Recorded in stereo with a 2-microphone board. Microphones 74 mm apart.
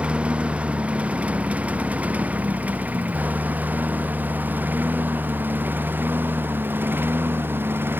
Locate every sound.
0.0 s a lawn mower: 15° right (ahead or behind); by 8.0 s 30° right (ahead or behind)